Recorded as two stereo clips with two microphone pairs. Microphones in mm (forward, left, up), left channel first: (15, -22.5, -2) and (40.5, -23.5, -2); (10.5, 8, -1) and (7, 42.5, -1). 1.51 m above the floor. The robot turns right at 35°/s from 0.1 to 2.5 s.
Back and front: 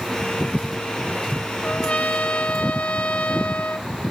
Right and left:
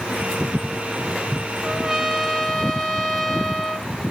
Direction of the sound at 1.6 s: 165° left.